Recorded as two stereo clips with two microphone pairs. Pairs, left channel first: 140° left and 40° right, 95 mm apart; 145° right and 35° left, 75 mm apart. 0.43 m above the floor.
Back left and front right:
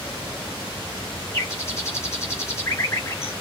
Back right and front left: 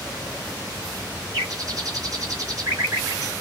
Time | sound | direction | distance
1.3 | a bird | 80° left | 3.5 m